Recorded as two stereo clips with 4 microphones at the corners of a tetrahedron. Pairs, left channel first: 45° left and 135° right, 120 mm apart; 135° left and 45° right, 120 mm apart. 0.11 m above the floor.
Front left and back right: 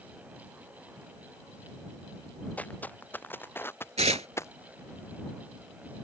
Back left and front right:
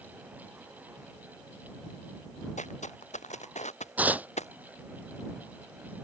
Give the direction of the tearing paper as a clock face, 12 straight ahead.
4 o'clock.